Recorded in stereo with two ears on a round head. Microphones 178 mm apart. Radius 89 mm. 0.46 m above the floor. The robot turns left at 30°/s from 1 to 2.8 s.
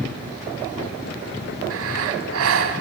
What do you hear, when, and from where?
1.7 s breathing: 75° right, 1.7 m; by 2.8 s 110° right, 1.7 m